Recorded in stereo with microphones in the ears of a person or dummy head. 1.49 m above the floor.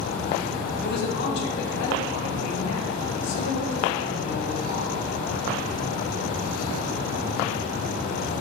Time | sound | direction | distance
0.8 | a man speaking | 55° left (ahead or behind) | 2.0 m